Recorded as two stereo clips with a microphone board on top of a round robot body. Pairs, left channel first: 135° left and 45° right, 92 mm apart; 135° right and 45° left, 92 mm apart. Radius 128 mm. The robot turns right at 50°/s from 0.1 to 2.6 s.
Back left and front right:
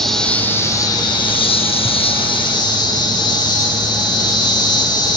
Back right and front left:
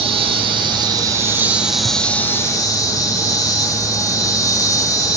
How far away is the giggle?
I don't hear a giggle.